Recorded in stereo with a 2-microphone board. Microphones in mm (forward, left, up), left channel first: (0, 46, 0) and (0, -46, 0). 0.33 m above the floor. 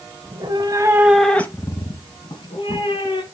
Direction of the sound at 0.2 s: 60° right (ahead or behind).